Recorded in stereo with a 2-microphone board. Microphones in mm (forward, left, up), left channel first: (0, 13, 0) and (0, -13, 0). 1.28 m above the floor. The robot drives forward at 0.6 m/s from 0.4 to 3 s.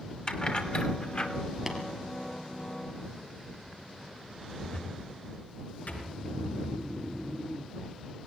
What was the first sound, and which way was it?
Keys jangling, 35° left (ahead or behind).